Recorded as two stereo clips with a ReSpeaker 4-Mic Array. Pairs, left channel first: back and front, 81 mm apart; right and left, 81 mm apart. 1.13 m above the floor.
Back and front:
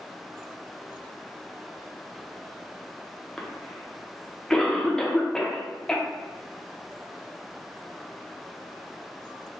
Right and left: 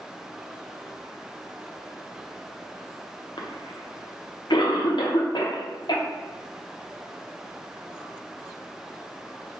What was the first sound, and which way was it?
A cough, 100° right.